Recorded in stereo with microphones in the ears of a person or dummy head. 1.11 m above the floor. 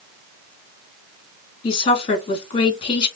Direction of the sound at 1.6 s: 30° left (ahead or behind).